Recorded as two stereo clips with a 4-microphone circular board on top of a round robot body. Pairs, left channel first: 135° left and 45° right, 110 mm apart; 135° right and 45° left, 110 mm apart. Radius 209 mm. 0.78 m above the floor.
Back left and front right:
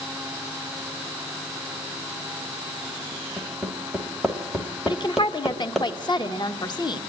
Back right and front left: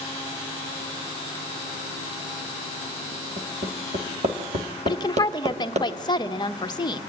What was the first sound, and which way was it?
Hammering, 40° left.